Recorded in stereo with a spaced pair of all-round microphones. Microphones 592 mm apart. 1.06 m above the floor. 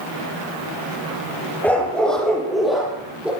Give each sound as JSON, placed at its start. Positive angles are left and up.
{"t": 1.6, "sound": "a dog barking", "side_deg": 5, "distance_m": 9.5}